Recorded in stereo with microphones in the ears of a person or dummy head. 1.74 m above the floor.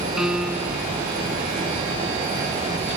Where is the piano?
5° right (ahead or behind).